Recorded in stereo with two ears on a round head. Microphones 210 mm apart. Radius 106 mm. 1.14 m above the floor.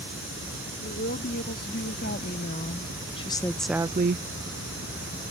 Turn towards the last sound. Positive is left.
turn(degrees=-50)  # may be behind; listen again after turning